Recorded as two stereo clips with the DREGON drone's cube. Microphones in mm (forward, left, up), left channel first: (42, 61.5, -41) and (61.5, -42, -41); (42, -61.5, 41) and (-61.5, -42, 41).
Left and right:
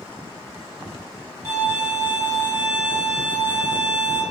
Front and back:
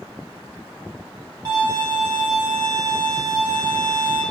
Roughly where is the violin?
Behind right.